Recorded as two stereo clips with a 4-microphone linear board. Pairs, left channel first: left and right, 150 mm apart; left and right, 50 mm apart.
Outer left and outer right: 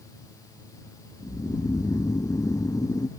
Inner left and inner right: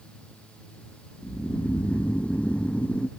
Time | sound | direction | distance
1.2 | snoring | 25° left (ahead or behind) | ?